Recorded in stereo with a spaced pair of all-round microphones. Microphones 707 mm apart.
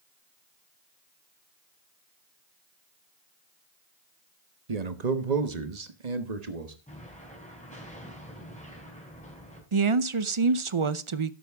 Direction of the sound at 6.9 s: 10° left (ahead or behind).